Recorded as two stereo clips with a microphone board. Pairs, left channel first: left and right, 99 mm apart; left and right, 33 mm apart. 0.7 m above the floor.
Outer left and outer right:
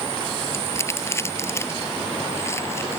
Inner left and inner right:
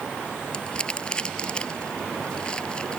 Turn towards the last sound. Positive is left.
turn(degrees=25)  # may be behind; listen again after turning